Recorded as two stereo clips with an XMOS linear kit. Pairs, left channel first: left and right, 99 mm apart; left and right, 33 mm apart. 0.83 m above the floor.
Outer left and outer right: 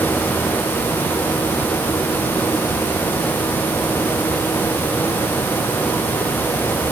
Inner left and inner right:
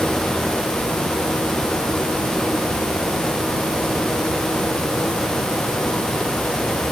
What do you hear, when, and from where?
Only background noise.